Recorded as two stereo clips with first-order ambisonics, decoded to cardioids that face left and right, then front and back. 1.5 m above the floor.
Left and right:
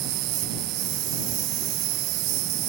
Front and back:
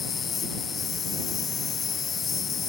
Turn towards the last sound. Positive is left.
turn(degrees=-65)